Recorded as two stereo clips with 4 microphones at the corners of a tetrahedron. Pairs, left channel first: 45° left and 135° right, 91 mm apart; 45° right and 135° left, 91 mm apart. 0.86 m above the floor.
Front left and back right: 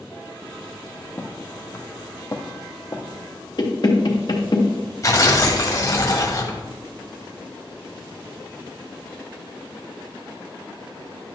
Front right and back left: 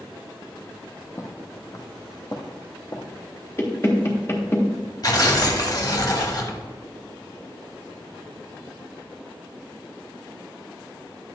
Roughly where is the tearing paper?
Ahead.